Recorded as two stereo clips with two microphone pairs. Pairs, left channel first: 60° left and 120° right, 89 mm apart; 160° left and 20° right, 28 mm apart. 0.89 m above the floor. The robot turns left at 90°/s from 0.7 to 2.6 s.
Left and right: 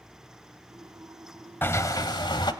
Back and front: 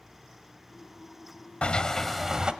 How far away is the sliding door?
About 1.1 m.